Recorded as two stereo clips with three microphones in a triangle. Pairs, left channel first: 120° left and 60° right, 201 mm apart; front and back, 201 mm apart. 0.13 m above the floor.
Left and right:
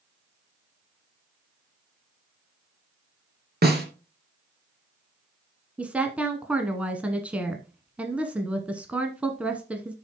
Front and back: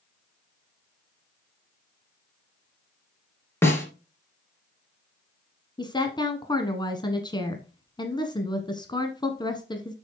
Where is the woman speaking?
10° left, 1.1 m.